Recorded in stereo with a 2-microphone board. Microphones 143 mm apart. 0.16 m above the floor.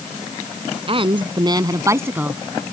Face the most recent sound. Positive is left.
turn(degrees=-10)  # may be behind; listen again after turning